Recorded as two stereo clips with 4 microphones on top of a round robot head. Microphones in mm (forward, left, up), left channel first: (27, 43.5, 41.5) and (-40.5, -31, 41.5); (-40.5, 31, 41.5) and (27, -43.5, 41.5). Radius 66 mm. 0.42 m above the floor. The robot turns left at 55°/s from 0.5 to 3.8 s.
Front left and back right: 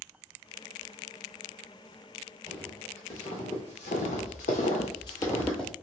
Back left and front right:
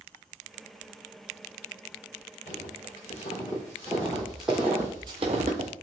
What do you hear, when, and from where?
2.5 s footsteps: 145° left, 1.7 m; by 5.7 s 40° right, 0.7 m